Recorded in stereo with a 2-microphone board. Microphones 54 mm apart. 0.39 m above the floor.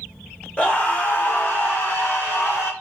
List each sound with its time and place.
0.6 s a scream: 20° left (ahead or behind), 0.9 m; by 2.7 s 50° left (ahead or behind), 1.9 m